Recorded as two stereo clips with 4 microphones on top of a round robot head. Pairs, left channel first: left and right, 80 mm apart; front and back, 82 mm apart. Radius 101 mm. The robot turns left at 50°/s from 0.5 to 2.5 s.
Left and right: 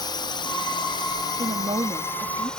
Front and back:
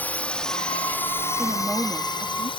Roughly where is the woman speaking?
Right.